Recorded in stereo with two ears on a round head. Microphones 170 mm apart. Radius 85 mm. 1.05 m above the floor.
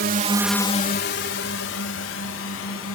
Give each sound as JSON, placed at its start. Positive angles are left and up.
{"t": 0.0, "sound": "a drone", "side_deg": -55}